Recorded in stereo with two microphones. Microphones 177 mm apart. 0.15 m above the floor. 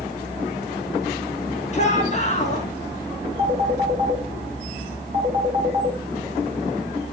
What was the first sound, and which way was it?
A shout, 40° left (ahead or behind).